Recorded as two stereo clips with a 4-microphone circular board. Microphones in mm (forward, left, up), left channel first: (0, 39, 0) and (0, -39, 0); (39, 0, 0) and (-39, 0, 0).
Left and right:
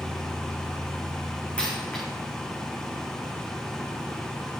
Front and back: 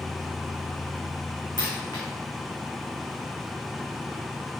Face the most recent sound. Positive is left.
turn(degrees=15)